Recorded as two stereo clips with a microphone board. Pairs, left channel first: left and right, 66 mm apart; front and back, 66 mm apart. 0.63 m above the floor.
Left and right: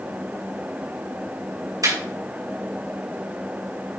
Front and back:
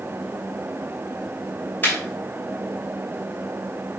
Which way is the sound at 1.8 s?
60° right.